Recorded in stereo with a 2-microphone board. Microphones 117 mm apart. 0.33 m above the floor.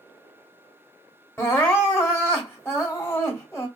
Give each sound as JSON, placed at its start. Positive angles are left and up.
{"t": 1.4, "sound": "crying", "side_deg": 20, "distance_m": 1.4}